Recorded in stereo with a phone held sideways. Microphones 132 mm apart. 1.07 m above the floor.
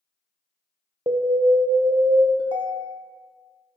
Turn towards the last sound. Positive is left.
turn(degrees=-40)  # may be behind; listen again after turning